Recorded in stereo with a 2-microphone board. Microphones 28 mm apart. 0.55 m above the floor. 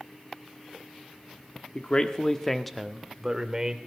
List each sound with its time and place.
1.8 s a man speaking: 40° left (ahead or behind), 1.1 m; by 3.8 s 25° right (ahead or behind), 1.9 m